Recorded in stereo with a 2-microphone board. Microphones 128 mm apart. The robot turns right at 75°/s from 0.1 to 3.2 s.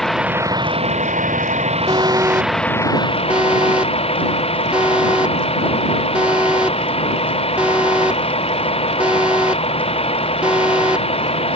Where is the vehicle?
Straight behind; by 11.6 s 50° left.